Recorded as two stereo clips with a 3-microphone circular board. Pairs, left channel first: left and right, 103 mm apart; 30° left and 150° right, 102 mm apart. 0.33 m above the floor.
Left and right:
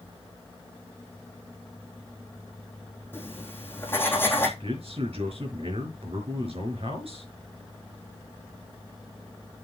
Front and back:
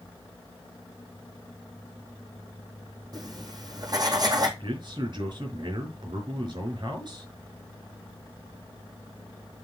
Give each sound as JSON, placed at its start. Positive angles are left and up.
{"t": 3.1, "sound": "writing", "azimuth_deg": 160, "distance_m": 3.0}
{"t": 4.6, "sound": "a man speaking", "azimuth_deg": -110, "distance_m": 4.5}